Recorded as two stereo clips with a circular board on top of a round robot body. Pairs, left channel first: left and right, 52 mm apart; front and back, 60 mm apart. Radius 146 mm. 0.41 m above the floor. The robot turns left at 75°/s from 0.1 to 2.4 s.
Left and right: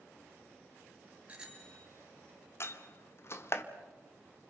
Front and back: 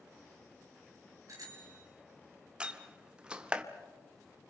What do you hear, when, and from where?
1.3 s a bicycle bell: 150° right, 4.5 m; by 1.9 s 165° left, 4.5 m
2.6 s a door slam: 110° left, 1.6 m